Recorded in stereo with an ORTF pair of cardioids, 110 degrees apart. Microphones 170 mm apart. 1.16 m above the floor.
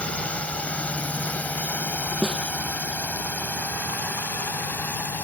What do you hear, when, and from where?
0.0 s a drone: 5° left; by 5.2 s 10° left
2.2 s a snare drum: straight ahead